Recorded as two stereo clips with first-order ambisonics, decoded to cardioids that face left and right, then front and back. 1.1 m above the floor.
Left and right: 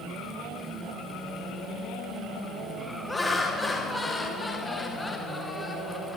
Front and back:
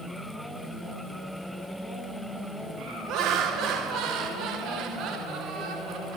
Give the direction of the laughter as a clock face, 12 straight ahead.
6 o'clock.